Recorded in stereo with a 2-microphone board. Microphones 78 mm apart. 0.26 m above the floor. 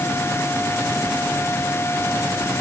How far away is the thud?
No thud in this recording.